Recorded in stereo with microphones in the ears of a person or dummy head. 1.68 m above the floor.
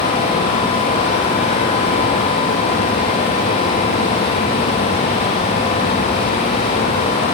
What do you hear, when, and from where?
Only background noise.